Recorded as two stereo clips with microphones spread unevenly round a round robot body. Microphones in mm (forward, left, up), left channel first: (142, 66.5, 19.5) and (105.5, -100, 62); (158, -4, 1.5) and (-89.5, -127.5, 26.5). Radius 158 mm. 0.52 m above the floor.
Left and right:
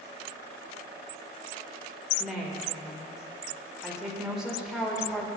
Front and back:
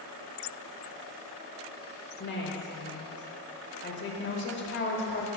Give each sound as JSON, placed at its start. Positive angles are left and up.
{"t": 2.2, "sound": "a woman speaking", "azimuth_deg": -10, "distance_m": 2.0}